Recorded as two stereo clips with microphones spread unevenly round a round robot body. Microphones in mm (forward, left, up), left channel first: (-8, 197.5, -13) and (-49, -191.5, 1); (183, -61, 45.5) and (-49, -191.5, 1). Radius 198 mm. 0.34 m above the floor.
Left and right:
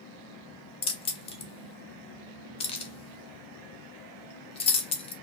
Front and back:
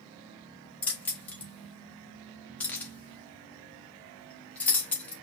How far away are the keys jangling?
About 0.6 m.